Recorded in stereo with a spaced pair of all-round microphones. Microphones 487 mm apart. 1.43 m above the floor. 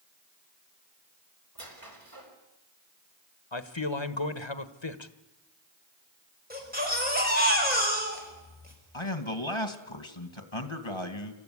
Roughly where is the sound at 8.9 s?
Left.